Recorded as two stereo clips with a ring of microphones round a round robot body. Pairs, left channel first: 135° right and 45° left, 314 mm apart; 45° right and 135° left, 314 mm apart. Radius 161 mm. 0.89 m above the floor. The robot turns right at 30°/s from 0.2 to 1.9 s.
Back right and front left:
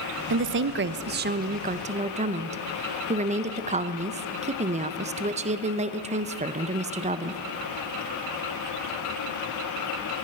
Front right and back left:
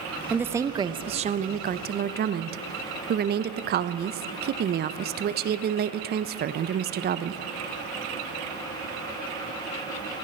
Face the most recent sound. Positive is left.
turn(degrees=100)